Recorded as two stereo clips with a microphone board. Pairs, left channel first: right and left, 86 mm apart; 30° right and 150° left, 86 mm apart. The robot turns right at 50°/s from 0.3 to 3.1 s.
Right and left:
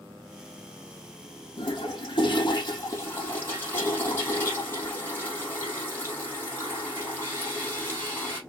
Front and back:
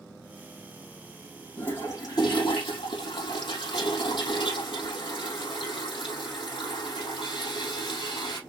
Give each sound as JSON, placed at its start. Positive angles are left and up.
{"t": 1.6, "sound": "a toilet flushing", "azimuth_deg": -100, "distance_m": 4.0}